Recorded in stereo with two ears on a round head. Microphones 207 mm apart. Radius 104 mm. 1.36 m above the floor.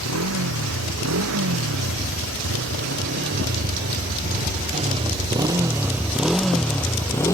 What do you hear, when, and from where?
0.0 s a motorcycle: 75° right (ahead or behind); by 7.3 s 15° left (ahead or behind)